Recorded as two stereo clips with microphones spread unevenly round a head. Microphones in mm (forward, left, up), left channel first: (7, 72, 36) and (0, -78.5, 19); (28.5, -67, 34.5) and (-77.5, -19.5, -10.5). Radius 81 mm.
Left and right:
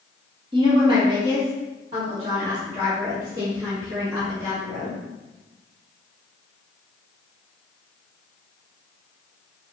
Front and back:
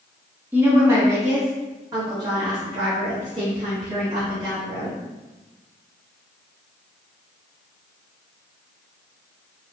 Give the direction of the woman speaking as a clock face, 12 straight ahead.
5 o'clock.